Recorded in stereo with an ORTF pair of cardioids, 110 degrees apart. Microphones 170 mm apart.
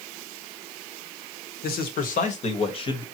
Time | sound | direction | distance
1.6 | a man speaking | 65° left | 1.4 m